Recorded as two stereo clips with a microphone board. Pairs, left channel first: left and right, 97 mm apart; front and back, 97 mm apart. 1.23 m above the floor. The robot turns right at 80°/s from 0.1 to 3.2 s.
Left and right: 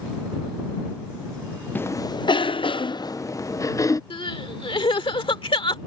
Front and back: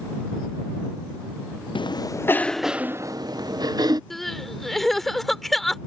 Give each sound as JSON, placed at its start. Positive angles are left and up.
{"t": 1.8, "sound": "a cough", "azimuth_deg": 20}
{"t": 4.1, "sound": "crying", "azimuth_deg": 90}